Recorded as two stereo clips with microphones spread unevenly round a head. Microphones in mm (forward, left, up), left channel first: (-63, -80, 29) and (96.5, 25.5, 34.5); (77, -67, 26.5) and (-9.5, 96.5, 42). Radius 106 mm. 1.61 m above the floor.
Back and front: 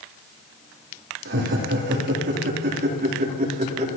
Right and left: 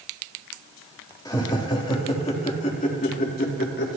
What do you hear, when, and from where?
1.2 s laughter: 10° left, 3.5 m; by 3.9 s 20° right, 4 m